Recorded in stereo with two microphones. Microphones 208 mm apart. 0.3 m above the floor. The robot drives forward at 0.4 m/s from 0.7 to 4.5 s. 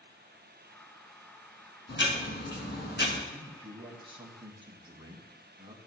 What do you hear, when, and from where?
1.9 s ticking: 65° left (ahead or behind), 2 m; by 3.2 s 55° left (ahead or behind), 2.5 m
3.3 s a man speaking: 25° right (ahead or behind), 2 m